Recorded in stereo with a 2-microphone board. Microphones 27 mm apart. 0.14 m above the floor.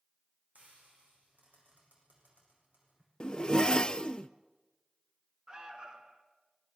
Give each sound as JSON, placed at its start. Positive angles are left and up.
{"t": 0.6, "sound": "frying", "side_deg": -75, "distance_m": 9.0}
{"t": 3.2, "sound": "a zipper", "side_deg": 25, "distance_m": 0.6}
{"t": 5.5, "sound": "an alarm", "side_deg": -25, "distance_m": 2.0}